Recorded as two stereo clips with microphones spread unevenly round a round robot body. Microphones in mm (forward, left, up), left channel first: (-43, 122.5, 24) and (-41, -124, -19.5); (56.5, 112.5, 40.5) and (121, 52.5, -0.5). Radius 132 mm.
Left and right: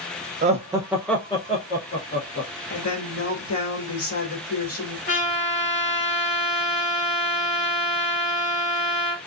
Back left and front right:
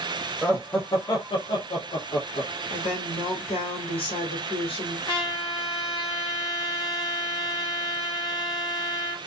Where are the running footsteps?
No running footsteps in this recording.